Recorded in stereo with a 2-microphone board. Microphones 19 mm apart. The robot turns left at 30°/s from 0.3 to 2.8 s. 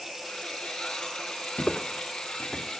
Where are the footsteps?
65° left (ahead or behind), 0.7 m.